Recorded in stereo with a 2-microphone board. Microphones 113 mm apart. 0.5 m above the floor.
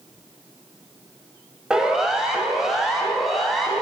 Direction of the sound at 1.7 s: 5° right (ahead or behind).